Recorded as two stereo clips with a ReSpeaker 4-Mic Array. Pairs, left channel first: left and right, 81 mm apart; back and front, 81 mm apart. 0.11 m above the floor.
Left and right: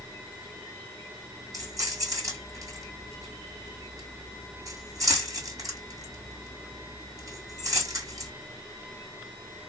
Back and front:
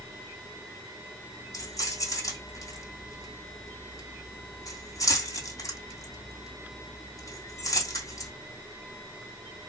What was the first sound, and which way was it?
Keys jangling, 135° right.